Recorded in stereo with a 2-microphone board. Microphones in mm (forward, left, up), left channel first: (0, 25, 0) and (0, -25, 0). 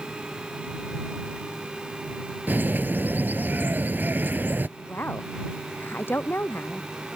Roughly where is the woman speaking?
Left.